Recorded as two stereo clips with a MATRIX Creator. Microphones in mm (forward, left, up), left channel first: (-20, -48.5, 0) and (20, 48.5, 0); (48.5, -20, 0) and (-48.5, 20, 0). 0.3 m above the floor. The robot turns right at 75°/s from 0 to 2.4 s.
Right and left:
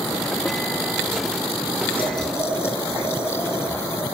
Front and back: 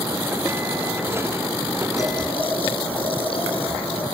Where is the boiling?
80° right, 4 m; by 4.0 s 50° right, 4 m.